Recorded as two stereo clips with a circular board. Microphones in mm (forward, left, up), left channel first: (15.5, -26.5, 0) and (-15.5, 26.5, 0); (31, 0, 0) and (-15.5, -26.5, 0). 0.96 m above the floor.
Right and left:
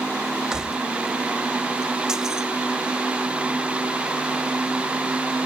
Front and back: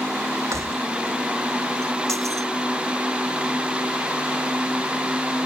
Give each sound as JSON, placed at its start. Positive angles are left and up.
{"t": 0.5, "sound": "keys jangling", "azimuth_deg": -160}